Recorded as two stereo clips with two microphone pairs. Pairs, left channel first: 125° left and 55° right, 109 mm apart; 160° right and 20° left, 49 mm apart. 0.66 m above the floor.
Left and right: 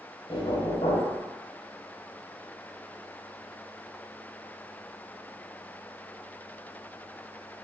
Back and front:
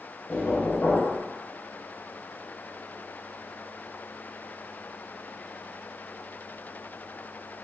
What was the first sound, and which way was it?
Knocking, 145° left.